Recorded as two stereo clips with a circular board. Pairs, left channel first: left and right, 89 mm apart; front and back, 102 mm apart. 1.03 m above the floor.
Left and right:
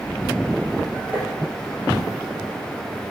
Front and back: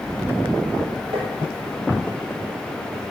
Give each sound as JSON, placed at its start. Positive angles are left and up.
{"t": 1.1, "sound": "tapping", "azimuth_deg": -155, "distance_m": 4.0}